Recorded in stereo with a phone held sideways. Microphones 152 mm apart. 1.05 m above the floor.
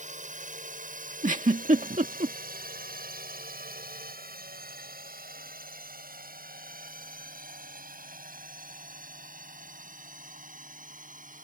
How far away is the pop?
I don't hear a pop.